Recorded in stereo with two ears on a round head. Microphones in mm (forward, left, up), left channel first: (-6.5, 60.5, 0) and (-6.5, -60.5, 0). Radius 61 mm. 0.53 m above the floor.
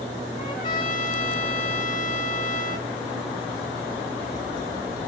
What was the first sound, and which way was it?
A trumpet, 30° left (ahead or behind).